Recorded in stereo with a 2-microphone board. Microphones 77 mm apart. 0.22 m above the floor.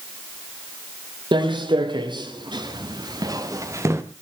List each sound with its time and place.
1.3 s footsteps: 85° right, 3 m; by 4.0 s 35° right (ahead or behind), 2 m